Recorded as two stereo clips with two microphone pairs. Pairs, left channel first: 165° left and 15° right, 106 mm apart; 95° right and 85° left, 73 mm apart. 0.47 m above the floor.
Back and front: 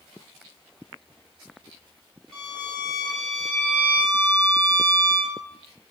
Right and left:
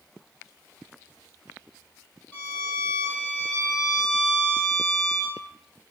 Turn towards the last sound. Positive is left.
turn(degrees=-130)